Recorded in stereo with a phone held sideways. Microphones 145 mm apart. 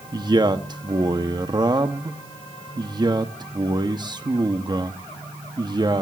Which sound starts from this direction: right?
A man speaking, at 0.1 s.